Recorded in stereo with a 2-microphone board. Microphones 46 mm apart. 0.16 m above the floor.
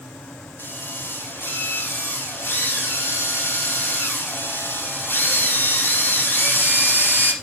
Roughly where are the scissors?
I don't hear scissors.